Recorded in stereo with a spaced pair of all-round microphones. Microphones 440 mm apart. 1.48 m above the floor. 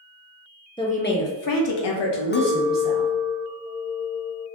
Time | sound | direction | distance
0.8 | a woman speaking | 10° left (ahead or behind) | 0.6 m
2.3 | a clink | 25° left (ahead or behind) | 0.5 m